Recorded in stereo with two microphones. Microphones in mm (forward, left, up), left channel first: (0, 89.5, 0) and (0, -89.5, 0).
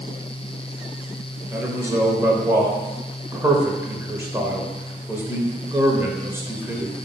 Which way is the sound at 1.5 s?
15° right (ahead or behind).